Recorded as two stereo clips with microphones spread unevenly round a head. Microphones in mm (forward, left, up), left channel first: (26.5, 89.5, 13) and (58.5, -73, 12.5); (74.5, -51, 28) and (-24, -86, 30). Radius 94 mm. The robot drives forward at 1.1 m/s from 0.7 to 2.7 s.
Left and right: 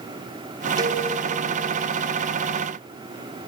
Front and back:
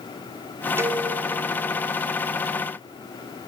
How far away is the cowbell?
About 1.7 m.